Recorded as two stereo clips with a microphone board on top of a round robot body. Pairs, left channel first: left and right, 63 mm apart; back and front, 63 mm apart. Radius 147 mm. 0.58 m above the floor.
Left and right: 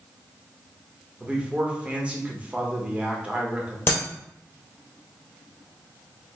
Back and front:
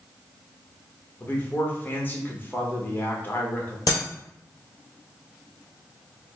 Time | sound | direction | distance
1.2 | a man speaking | 145° right | 1.4 m
3.9 | breaking glass | 145° left | 1.6 m